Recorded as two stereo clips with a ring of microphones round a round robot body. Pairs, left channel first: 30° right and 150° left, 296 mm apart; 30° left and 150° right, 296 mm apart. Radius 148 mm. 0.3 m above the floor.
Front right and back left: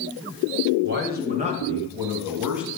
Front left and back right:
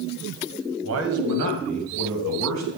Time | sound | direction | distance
0.8 | a man speaking | 175° right | 1.7 m